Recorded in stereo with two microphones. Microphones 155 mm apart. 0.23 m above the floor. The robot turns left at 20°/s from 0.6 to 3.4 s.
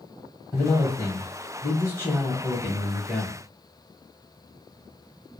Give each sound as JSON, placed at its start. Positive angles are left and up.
{"t": 0.5, "sound": "a man speaking", "side_deg": 20, "distance_m": 1.0}